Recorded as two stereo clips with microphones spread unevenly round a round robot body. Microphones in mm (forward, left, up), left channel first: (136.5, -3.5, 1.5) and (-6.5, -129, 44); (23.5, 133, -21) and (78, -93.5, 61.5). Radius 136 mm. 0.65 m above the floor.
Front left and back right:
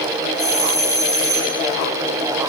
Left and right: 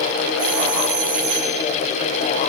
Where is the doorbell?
60° right, 5.5 m.